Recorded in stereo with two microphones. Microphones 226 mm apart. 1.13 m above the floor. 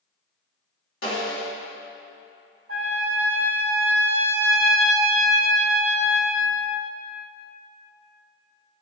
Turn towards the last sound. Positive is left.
turn(degrees=-65)  # may be behind; listen again after turning